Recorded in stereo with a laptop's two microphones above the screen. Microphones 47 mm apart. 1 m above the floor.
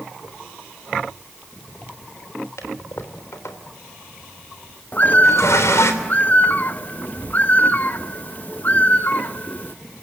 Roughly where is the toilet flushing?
Left.